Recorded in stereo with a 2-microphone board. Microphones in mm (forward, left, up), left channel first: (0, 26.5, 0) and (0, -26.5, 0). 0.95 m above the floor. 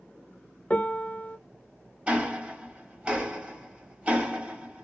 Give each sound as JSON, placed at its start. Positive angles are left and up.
{"t": 0.7, "sound": "a piano", "side_deg": 25, "distance_m": 0.6}
{"t": 2.1, "sound": "ticking", "side_deg": -25, "distance_m": 1.3}